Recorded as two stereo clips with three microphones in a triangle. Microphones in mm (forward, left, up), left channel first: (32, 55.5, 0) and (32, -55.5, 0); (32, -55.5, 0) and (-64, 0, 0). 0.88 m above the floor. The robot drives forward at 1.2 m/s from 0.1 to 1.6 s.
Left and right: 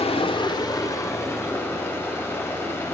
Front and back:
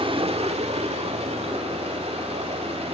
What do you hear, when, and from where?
0.0 s running water: 115° left, 1.0 m; by 2.9 s 160° left, 2.5 m